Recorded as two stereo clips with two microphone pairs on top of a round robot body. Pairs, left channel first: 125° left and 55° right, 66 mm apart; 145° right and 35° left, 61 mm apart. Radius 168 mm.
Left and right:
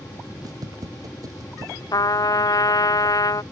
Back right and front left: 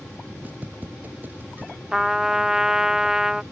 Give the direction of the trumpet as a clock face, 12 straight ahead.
8 o'clock.